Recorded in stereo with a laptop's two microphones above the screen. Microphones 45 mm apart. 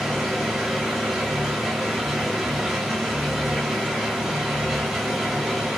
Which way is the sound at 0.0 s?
5° right (ahead or behind).